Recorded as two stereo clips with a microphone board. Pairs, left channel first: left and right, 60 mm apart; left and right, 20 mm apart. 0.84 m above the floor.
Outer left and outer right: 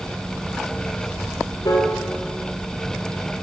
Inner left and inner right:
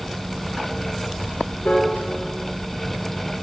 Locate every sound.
1.6 s a piano: 65° left (ahead or behind), 2 m